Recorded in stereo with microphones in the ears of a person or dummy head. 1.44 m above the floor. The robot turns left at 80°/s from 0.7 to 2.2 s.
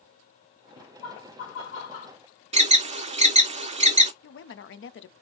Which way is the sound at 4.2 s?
55° left (ahead or behind).